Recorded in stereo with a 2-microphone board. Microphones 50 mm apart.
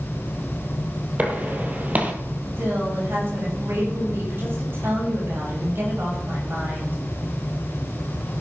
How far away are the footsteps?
About 1.9 m.